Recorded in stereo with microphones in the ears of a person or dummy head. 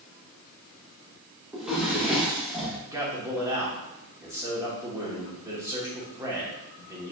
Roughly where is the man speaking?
Centre.